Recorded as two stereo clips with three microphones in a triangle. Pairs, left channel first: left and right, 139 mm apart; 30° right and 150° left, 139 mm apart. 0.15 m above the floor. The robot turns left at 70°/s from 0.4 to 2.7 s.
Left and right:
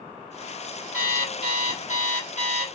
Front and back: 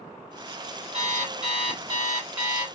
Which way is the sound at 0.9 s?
175° left.